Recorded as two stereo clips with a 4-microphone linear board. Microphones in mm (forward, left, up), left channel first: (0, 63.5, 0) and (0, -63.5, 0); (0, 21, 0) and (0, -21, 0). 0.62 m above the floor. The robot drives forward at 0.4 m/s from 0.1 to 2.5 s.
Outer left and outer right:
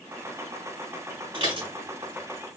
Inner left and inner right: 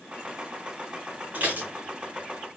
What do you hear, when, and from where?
1.3 s dishes clattering: 45° right (ahead or behind), 3 m